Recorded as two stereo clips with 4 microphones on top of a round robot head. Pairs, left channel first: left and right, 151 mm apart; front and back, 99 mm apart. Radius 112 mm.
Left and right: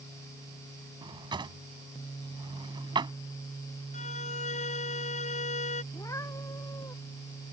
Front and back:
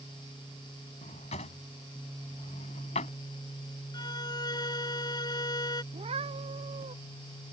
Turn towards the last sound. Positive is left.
turn(degrees=165)